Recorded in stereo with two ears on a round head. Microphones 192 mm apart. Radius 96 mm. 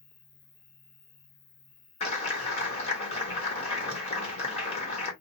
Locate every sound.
0.0 s an insect: 60° left (ahead or behind), 1.5 m
2.0 s a clap: 30° left (ahead or behind), 1.3 m